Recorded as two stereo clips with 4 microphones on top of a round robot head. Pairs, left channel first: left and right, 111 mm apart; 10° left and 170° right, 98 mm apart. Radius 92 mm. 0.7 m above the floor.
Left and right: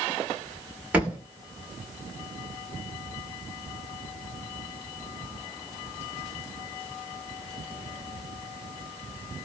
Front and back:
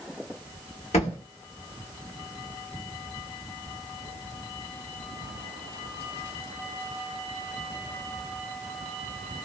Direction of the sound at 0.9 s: 10° right.